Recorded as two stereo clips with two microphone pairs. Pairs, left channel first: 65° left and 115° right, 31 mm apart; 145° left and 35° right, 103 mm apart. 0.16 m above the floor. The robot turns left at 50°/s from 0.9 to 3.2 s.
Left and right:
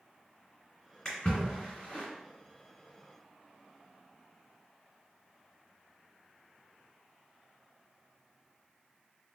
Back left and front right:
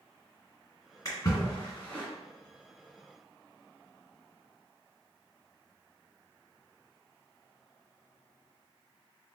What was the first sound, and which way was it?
A splash, 125° left.